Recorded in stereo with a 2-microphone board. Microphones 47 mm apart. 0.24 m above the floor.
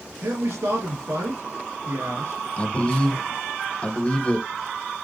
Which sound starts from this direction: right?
A man speaking, at 0.2 s.